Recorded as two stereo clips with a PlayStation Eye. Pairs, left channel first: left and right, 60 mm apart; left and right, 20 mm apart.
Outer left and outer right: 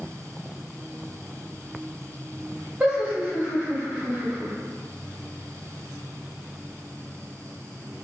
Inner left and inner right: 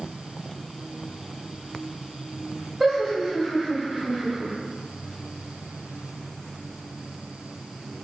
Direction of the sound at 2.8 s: 25° right (ahead or behind).